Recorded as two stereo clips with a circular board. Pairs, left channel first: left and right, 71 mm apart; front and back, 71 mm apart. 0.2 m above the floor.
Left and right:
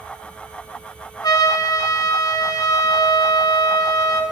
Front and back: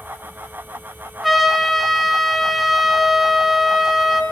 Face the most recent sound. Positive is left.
turn(degrees=90)